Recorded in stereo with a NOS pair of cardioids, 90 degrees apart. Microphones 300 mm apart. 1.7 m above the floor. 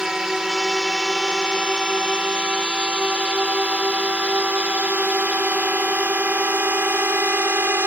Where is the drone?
Straight ahead; by 7.9 s 5° right.